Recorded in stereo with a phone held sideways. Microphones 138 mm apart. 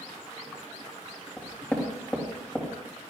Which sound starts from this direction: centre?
Knocking, at 1.4 s.